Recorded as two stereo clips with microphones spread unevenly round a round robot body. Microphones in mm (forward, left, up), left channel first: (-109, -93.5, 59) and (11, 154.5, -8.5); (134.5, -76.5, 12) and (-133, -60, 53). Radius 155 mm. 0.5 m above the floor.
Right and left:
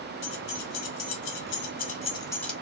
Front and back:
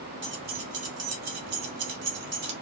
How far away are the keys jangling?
About 1.4 m.